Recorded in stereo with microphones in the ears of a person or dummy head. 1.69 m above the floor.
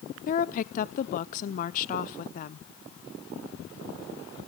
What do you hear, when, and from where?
0.3 s a woman speaking: 45° left (ahead or behind), 0.7 m